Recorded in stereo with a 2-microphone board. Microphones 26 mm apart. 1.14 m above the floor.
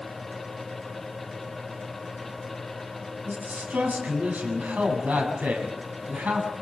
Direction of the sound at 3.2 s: 85° right.